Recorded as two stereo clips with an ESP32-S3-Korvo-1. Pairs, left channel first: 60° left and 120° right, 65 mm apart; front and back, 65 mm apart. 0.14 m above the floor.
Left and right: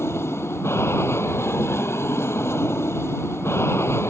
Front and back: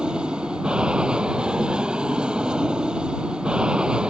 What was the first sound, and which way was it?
An aircraft, 105° left.